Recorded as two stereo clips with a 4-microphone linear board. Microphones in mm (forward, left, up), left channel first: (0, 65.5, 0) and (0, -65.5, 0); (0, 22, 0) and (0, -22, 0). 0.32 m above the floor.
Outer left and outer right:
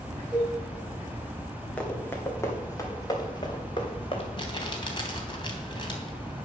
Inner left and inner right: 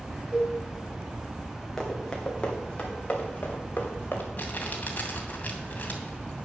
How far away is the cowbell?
About 6.5 m.